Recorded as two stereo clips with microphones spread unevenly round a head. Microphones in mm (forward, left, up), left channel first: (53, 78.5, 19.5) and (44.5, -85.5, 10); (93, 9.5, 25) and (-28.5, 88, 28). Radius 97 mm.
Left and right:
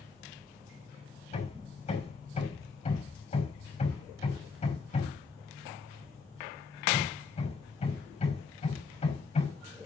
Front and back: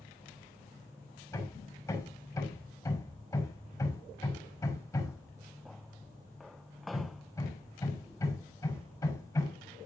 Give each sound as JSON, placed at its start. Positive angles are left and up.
{"t": 1.3, "sound": "hammering", "azimuth_deg": 35, "distance_m": 6.0}